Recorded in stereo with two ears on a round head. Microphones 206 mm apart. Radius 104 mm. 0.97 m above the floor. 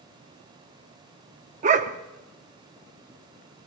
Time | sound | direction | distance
1.6 | a dog barking | 35° right (ahead or behind) | 0.7 m